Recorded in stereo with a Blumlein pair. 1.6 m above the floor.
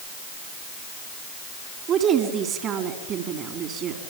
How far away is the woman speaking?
About 4 m.